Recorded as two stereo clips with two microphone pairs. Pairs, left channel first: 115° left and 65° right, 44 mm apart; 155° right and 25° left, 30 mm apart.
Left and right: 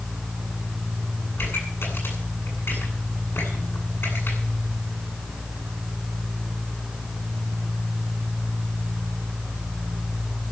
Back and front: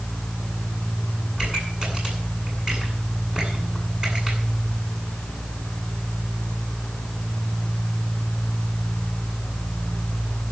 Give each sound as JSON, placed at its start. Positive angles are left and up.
{"t": 1.4, "sound": "a pop", "azimuth_deg": 95, "distance_m": 8.5}